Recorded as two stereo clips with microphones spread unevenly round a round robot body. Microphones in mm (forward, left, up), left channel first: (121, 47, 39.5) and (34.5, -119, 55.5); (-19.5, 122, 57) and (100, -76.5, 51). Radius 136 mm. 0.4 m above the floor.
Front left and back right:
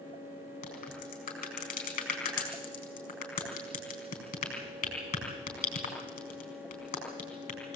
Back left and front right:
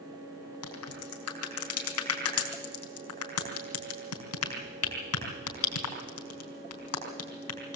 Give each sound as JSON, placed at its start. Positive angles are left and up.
{"t": 0.6, "sound": "a crack", "azimuth_deg": 115, "distance_m": 4.0}